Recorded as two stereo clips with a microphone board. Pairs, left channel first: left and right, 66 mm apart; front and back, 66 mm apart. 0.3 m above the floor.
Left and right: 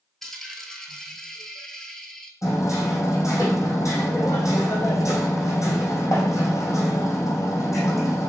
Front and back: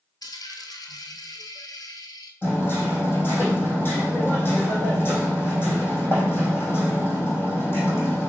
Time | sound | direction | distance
0.2 | a dropped coin | 5° left | 1.1 m
2.4 | hammering | 55° left | 3 m